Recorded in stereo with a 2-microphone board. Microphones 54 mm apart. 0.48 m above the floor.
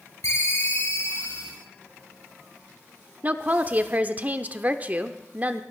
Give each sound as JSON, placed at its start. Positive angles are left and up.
{"t": 0.2, "sound": "a ringtone", "side_deg": 75, "distance_m": 6.0}
{"t": 3.2, "sound": "a woman speaking", "side_deg": -30, "distance_m": 0.9}